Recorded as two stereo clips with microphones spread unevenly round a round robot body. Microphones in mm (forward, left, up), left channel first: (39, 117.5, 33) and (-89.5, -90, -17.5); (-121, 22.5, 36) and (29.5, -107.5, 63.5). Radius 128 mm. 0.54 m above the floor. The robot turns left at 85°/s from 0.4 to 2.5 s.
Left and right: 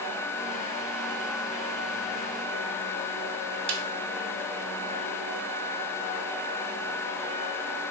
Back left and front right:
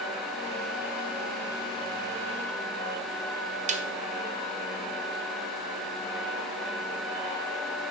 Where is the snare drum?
95° right, 0.6 m.